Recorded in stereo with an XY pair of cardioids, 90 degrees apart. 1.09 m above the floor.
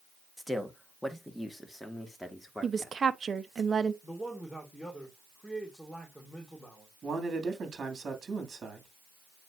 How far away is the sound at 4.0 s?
About 3.5 m.